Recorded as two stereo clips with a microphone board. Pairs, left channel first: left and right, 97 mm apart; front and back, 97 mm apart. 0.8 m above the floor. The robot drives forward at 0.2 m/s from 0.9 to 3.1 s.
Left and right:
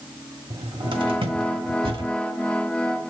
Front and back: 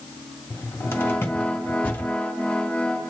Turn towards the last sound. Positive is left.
turn(degrees=-80)